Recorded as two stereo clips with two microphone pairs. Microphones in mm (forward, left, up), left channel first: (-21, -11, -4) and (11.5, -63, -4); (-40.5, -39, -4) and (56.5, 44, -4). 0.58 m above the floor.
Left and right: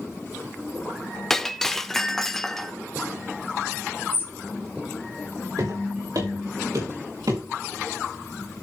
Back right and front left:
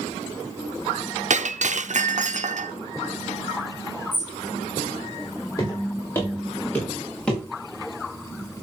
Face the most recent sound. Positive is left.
turn(degrees=-55)